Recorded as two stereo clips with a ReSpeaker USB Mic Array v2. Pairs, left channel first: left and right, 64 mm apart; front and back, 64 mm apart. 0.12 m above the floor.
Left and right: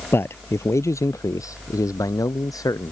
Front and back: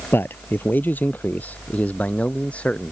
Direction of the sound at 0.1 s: 50° left.